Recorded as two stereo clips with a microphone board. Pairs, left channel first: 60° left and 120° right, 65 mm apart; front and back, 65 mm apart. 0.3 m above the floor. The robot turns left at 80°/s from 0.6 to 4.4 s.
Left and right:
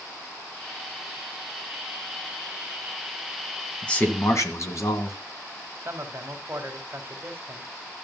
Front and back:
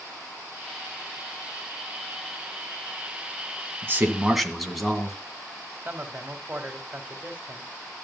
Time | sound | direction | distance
3.8 | a man speaking | 135° left | 2 m
5.8 | a man speaking | 125° right | 2.0 m